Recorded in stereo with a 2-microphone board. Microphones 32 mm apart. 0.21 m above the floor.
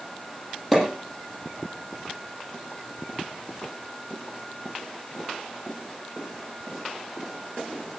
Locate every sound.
0.7 s a pop: 5° left (ahead or behind), 8 m